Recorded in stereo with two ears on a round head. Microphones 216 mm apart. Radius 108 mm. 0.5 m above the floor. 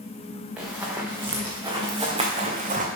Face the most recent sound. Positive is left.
turn(degrees=-35)  # may be behind; listen again after turning